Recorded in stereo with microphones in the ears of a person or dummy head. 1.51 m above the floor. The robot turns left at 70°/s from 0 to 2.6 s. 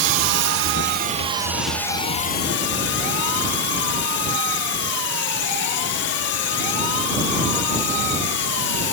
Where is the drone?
60° right; by 8.9 s 115° left.